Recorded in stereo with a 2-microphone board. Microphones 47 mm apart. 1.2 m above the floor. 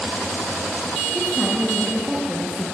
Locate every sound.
1.1 s a woman speaking: centre (ahead or behind), 2 m